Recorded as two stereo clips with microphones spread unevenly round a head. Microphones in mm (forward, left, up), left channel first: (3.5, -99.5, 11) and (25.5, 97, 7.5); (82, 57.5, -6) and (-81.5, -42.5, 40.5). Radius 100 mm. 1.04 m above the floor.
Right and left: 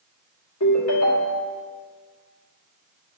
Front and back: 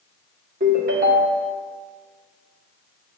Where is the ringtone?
100° right, 1.6 m.